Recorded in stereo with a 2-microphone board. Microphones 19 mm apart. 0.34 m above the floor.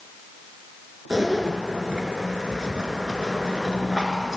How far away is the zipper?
About 1.9 m.